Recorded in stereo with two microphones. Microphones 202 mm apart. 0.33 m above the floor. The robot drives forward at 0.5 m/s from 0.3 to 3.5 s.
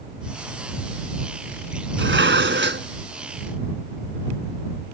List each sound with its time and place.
2.0 s dishes clattering: 75° right (ahead or behind); by 2.9 s 65° right (ahead or behind)